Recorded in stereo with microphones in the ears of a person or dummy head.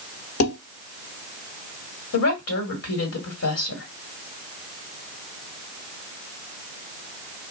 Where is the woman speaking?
80° left, 1.4 m.